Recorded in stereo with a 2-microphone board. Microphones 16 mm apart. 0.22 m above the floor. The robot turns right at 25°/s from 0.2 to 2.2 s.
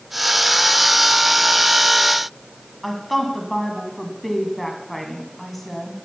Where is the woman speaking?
5° left (ahead or behind), 2 m.